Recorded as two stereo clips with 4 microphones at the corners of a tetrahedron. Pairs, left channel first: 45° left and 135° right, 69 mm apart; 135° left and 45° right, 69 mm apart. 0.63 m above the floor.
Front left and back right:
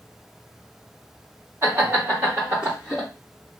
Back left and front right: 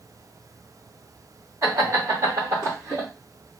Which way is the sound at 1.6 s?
80° right.